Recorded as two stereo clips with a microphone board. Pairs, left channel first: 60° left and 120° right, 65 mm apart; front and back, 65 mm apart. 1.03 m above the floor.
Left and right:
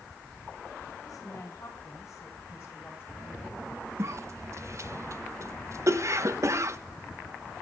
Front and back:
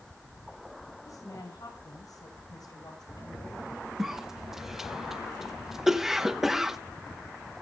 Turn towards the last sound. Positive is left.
turn(degrees=-95)